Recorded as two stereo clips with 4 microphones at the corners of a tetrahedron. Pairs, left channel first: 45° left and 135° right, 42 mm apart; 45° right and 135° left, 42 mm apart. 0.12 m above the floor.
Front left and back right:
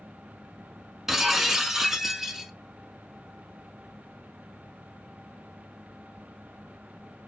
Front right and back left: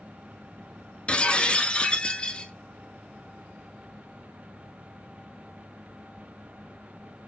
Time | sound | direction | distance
1.1 | breaking glass | 60° right | 0.7 m